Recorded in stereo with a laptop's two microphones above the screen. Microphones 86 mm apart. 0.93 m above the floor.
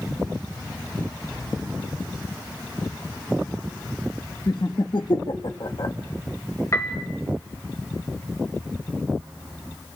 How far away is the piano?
About 1.2 m.